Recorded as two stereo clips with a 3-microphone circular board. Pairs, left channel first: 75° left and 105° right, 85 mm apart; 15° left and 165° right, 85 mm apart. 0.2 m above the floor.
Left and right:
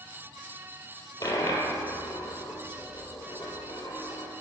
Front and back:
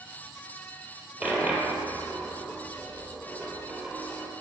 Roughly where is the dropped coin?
Behind left.